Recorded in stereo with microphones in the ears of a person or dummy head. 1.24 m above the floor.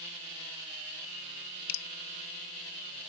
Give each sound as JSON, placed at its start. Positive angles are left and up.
{"t": 1.7, "sound": "dripping", "side_deg": 65}